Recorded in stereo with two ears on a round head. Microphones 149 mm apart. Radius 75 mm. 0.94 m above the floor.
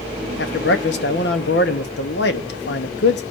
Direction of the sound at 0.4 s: 70° left (ahead or behind).